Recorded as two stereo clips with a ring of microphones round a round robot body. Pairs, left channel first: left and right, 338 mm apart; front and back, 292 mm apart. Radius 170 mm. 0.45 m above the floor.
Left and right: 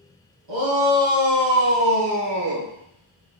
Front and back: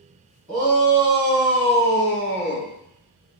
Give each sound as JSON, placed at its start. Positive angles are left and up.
{"t": 0.5, "sound": "a shout", "azimuth_deg": -100, "distance_m": 3.5}